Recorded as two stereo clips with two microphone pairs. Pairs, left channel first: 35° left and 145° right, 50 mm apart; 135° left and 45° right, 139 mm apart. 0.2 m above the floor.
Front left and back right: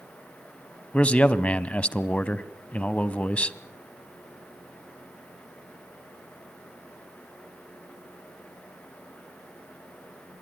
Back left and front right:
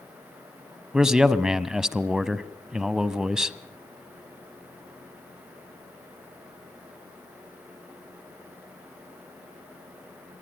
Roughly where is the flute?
I don't hear a flute.